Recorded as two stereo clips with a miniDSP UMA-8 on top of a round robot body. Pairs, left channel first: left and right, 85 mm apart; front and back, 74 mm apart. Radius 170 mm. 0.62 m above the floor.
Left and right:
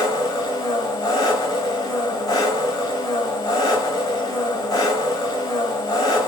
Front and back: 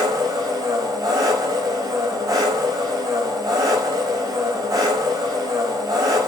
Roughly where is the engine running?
Behind left.